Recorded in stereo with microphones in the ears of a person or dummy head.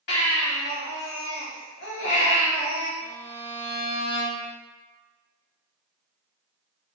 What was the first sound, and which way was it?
A baby crying, 55° left (ahead or behind).